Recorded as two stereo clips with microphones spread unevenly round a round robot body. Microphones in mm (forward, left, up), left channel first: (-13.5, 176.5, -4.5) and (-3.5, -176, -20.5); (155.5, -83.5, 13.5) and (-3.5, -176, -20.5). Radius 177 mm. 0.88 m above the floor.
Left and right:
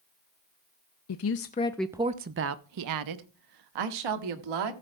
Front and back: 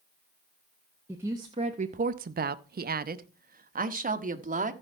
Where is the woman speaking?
135° left, 0.6 m; by 4.7 s 105° right, 1.6 m.